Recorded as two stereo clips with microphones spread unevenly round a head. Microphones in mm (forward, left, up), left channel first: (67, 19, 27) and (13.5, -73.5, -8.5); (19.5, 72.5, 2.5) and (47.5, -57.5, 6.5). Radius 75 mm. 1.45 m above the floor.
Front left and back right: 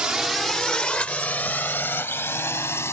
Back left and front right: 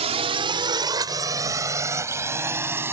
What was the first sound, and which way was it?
A drone, 35° right.